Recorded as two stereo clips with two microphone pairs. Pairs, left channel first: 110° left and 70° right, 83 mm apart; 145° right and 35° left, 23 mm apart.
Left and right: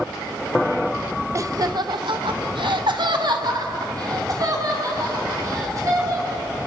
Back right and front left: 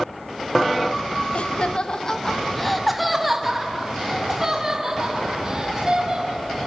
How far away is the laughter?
About 1.2 m.